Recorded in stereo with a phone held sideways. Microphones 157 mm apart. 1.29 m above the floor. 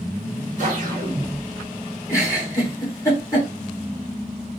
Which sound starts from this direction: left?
A giggle, at 2.1 s.